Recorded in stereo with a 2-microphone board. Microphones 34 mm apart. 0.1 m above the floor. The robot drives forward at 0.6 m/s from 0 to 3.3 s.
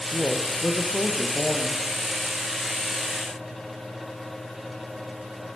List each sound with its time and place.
0.1 s a woman speaking: 25° left (ahead or behind), 4 m; by 1.8 s 20° left (ahead or behind), 5 m